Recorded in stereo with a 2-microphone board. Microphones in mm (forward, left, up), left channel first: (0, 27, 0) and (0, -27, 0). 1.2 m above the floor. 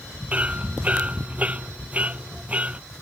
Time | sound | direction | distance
0.3 | hammering | 25° right (ahead or behind) | ?